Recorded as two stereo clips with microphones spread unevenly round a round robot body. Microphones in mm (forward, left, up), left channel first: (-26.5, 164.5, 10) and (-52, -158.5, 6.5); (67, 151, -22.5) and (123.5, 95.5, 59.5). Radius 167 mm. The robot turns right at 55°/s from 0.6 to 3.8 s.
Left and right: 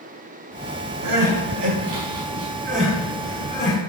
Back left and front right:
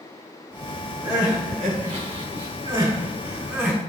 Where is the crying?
120° right, 5.5 m; by 3.8 s 35° left, 5.5 m.